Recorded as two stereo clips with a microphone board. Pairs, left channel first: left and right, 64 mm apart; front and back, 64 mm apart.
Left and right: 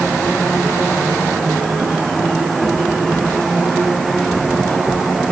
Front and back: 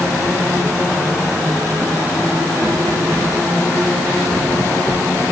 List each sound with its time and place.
Only background noise.